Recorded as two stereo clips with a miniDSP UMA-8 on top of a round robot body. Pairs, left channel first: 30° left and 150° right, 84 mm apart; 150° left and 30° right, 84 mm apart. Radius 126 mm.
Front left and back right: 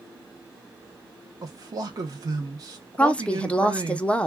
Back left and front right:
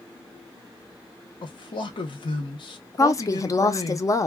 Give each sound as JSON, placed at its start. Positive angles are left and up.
{"t": 1.4, "sound": "a man speaking", "azimuth_deg": 165, "distance_m": 0.7}
{"t": 3.0, "sound": "a woman speaking", "azimuth_deg": 105, "distance_m": 0.6}